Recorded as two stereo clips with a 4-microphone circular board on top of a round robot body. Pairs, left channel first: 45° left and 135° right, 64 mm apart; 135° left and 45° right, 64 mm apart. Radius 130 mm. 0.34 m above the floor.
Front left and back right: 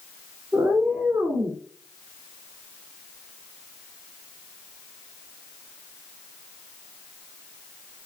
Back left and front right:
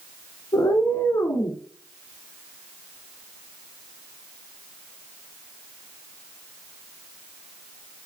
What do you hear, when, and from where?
0.5 s a cat meowing: 170° left, 1.1 m